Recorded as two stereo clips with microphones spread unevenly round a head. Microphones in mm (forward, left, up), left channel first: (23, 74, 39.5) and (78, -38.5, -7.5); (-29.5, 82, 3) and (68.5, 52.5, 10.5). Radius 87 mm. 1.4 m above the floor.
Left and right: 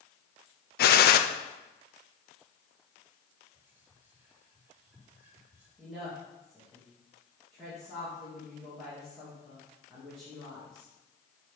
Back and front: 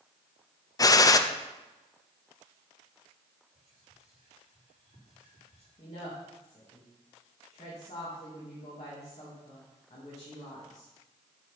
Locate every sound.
0.8 s a gunshot: 115° left, 0.6 m
3.5 s whispering: 10° left, 3.5 m
5.8 s a woman speaking: 150° right, 2 m